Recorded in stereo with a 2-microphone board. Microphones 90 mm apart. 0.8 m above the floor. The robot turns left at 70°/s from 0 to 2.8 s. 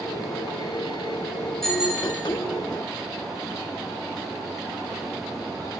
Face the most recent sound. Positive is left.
turn(degrees=-75)